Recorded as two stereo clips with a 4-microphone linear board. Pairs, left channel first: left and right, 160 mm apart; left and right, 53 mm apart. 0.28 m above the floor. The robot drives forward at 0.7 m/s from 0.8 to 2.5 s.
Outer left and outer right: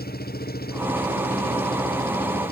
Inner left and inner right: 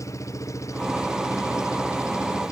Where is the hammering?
No hammering in this recording.